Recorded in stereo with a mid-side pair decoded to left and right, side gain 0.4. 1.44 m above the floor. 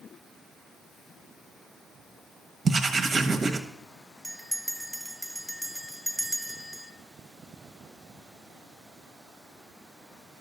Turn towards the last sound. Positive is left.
turn(degrees=-5)